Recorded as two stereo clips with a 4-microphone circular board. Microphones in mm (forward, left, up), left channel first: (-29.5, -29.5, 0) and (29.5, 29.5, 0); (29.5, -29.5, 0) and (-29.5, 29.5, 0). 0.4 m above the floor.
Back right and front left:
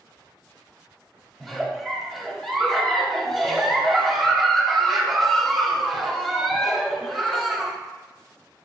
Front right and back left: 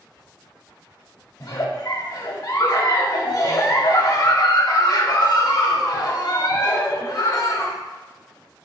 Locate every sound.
1.4 s a giggle: 50° right, 0.7 m